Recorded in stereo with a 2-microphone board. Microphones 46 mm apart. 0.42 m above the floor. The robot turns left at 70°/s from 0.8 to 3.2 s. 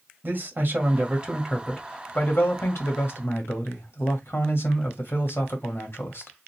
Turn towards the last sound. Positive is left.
turn(degrees=65)